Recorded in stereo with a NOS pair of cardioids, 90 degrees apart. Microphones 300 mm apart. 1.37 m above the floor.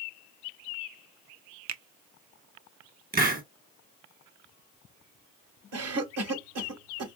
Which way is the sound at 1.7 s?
65° right.